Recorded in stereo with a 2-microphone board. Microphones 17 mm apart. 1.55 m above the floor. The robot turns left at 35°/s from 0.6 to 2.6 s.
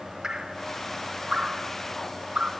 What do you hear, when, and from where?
0.2 s dripping: 35° right (ahead or behind), 6 m; by 2.5 s 75° right (ahead or behind), 6 m